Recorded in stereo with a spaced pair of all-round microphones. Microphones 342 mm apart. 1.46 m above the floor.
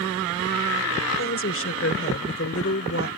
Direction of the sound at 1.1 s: 40° left (ahead or behind).